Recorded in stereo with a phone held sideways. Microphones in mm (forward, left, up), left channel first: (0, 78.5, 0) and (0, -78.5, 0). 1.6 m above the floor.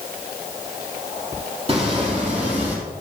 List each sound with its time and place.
1.7 s footsteps: 35° right (ahead or behind), 2.5 m; by 2.8 s 45° right (ahead or behind), 3 m